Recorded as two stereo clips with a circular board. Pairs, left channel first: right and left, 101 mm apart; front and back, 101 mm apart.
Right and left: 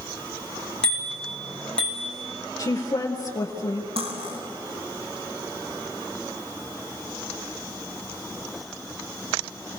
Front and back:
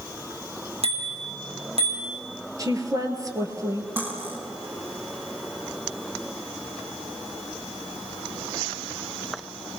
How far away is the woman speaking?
About 2.5 m.